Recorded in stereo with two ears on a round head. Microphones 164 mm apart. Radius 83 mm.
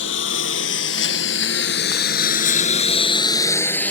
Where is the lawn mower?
75° left (ahead or behind); by 3.9 s 10° left (ahead or behind).